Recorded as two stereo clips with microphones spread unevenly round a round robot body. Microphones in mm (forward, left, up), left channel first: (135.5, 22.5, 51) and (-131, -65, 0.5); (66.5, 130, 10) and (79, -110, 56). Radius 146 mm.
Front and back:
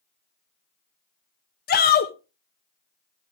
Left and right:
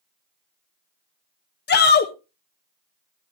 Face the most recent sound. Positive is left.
turn(degrees=75)